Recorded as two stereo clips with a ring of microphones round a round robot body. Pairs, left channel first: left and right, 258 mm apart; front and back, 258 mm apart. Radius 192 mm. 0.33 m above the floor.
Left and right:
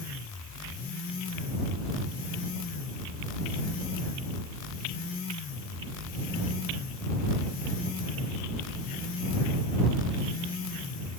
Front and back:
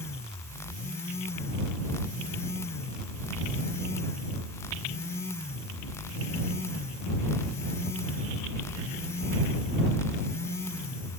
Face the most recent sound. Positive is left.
No sound to turn to.